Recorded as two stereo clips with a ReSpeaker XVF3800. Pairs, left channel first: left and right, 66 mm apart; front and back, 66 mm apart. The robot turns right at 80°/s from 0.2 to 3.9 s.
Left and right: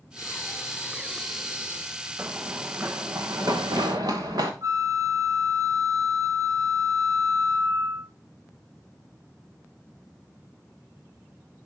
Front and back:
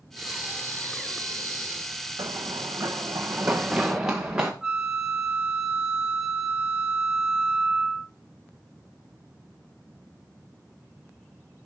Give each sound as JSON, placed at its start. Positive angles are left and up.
{"t": 0.2, "sound": "breathing", "azimuth_deg": 90, "distance_m": 2.0}
{"t": 2.2, "sound": "running footsteps", "azimuth_deg": -150, "distance_m": 1.0}
{"t": 4.6, "sound": "a flute", "azimuth_deg": -105, "distance_m": 1.0}